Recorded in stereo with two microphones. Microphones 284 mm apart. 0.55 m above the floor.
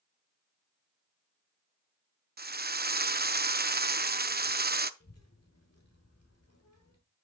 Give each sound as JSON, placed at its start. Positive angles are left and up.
{"t": 2.4, "sound": "a drill", "side_deg": -35, "distance_m": 0.5}
{"t": 5.0, "sound": "a child speaking", "side_deg": 60, "distance_m": 1.5}